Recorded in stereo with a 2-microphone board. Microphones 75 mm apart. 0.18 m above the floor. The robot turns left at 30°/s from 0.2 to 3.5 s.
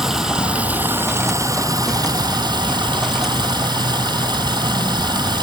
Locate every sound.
0.0 s running water: 5° right, 0.9 m; by 5.4 s 105° right, 0.9 m